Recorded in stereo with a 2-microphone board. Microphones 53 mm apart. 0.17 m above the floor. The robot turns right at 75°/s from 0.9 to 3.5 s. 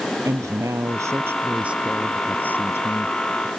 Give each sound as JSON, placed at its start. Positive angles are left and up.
{"t": 0.2, "sound": "a woman speaking", "azimuth_deg": -85}